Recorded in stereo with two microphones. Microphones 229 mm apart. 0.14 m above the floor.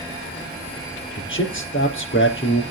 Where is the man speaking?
60° left (ahead or behind), 4 m.